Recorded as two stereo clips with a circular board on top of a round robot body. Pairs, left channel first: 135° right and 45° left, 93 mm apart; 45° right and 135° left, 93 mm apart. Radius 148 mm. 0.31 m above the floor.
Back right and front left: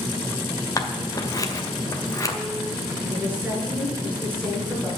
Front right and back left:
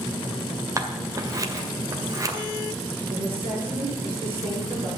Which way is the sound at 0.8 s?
Straight behind.